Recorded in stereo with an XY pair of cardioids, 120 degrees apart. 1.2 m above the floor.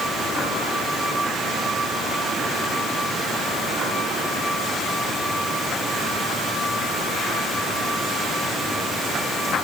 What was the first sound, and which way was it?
Only background noise.